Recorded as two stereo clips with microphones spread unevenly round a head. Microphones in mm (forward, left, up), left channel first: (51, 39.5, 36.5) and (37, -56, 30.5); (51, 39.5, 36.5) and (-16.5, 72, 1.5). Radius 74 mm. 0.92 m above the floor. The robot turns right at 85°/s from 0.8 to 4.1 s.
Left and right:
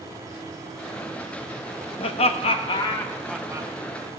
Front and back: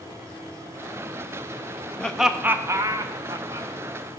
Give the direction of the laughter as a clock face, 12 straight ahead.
10 o'clock.